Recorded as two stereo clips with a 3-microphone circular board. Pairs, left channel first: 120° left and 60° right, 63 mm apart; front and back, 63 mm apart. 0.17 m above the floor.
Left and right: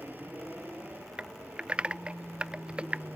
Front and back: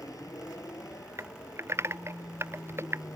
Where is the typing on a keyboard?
130° right.